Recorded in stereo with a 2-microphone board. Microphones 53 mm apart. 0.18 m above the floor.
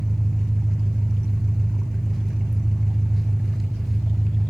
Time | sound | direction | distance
0.0 | an engine running | centre (ahead or behind) | 1.2 m